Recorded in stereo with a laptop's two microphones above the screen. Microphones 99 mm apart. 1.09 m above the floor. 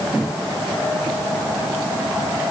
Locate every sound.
Only background noise.